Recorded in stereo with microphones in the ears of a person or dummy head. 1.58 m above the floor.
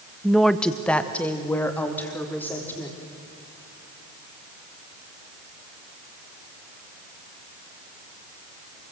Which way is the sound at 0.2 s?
Centre (ahead or behind).